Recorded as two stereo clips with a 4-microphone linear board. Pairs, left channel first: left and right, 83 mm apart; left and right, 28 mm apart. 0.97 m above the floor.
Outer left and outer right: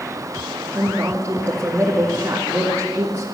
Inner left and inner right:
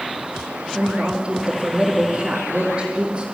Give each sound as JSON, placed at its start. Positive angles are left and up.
{"t": 0.7, "sound": "a woman speaking", "side_deg": -30, "distance_m": 2.0}